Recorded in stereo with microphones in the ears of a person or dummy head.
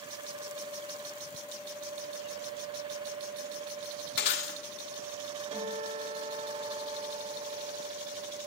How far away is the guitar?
About 2.5 m.